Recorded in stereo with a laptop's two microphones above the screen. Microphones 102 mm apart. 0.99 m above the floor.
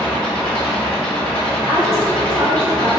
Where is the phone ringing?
I don't hear a phone ringing.